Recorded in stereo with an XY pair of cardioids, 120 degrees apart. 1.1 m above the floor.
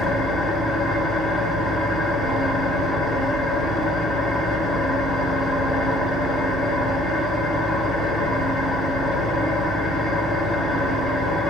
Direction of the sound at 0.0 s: 50° left.